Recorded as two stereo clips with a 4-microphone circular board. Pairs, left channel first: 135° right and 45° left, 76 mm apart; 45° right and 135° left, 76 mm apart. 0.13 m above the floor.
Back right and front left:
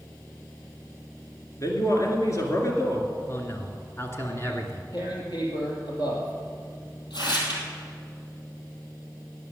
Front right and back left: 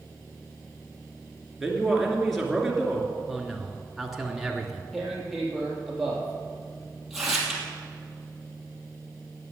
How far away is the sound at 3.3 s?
About 1.7 m.